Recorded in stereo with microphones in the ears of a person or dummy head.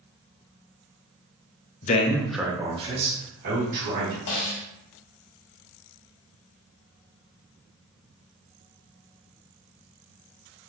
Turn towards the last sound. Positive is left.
turn(degrees=60)  # may be behind; listen again after turning